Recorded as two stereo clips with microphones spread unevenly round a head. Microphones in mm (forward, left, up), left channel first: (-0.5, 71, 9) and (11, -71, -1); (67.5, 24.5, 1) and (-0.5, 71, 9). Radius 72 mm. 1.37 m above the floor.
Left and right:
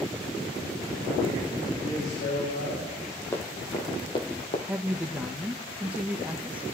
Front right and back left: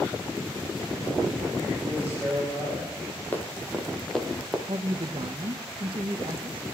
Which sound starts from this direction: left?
A man speaking, at 1.8 s.